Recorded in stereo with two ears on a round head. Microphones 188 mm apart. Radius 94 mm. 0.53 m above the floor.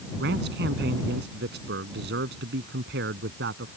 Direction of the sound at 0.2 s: 60° right (ahead or behind).